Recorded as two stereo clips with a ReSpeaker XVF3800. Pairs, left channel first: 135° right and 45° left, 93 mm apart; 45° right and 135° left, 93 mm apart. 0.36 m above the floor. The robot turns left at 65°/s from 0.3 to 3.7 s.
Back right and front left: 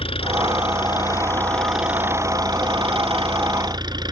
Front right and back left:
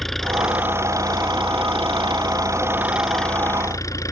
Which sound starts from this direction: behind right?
An engine running, at 0.0 s.